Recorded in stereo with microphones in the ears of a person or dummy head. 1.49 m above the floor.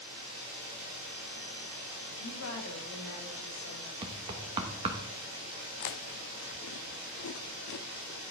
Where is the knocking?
25° right (ahead or behind), 1.1 m.